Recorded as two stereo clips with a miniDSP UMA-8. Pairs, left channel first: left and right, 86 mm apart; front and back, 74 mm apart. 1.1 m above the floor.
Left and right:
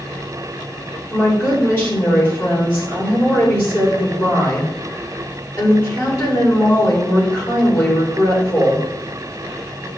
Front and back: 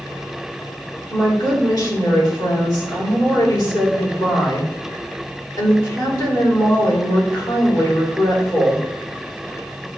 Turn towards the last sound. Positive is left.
turn(degrees=25)